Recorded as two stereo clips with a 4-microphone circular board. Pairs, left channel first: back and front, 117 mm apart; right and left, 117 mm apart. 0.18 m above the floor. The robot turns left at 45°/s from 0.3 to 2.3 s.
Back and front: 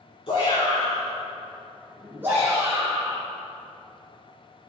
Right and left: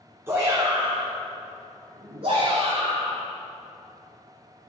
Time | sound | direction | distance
0.3 | a shout | 155° left | 2.5 m